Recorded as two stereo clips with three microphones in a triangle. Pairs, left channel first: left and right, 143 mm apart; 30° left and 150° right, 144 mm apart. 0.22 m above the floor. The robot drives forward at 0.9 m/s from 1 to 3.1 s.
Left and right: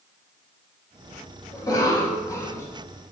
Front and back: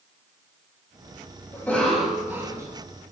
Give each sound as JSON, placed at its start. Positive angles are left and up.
{"t": 1.5, "sound": "a cough", "azimuth_deg": 80, "distance_m": 1.1}